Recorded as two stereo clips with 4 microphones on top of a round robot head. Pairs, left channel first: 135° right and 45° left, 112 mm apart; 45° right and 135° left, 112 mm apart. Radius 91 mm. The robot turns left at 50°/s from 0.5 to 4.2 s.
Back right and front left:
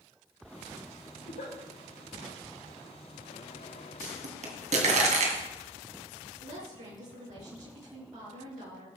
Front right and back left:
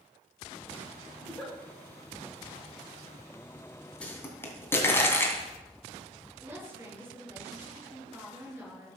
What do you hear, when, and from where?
1.2 s a giggle: 125° right, 6 m; by 1.5 s 145° right, 6 m
4.0 s a pop: 35° left, 2.5 m; by 5.4 s 25° left, 2.5 m
6.4 s a woman speaking: 65° left, 6 m